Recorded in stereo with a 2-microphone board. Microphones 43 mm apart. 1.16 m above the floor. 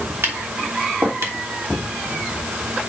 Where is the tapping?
75° right (ahead or behind), 3 m.